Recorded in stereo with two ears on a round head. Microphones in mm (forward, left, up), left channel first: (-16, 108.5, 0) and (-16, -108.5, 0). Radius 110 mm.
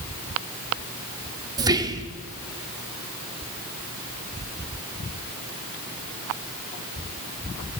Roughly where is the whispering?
Centre.